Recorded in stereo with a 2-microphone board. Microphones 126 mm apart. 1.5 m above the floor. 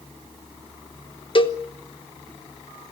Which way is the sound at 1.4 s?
45° left (ahead or behind).